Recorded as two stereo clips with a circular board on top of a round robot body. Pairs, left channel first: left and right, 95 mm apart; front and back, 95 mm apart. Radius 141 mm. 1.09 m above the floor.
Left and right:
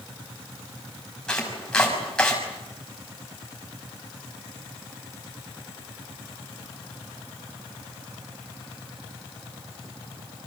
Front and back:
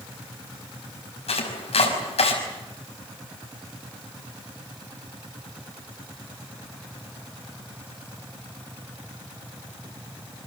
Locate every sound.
1.3 s chopping: 10° left, 5.5 m